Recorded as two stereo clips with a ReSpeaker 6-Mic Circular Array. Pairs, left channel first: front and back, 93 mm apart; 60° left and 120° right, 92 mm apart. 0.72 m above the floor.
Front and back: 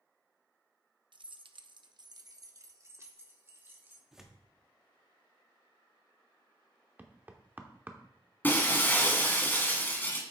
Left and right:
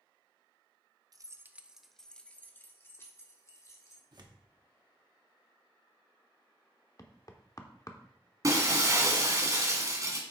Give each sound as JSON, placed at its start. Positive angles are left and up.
{"t": 1.1, "sound": "keys jangling", "azimuth_deg": -160, "distance_m": 0.5}
{"t": 4.1, "sound": "tearing paper", "azimuth_deg": -95, "distance_m": 1.2}
{"t": 7.0, "sound": "knocking", "azimuth_deg": 110, "distance_m": 0.9}
{"t": 8.4, "sound": "breaking glass", "azimuth_deg": -70, "distance_m": 1.7}